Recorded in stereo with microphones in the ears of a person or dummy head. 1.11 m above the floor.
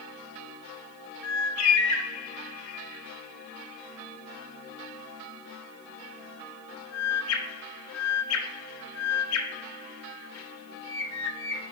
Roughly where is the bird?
Left.